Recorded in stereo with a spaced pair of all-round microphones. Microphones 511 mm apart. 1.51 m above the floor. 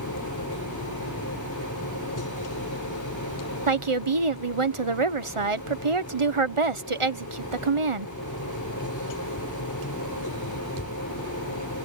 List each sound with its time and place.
0.0 s a machine running: 35° left (ahead or behind)
3.7 s a woman speaking: 70° right (ahead or behind)